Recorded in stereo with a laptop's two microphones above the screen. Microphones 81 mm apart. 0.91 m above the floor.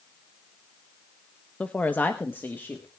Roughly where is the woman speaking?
Centre.